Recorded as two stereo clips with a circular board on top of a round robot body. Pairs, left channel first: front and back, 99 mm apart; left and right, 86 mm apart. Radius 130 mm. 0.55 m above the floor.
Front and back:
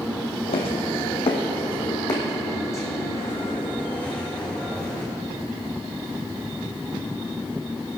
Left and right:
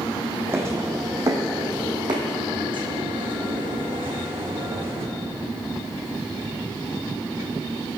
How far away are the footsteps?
About 2 m.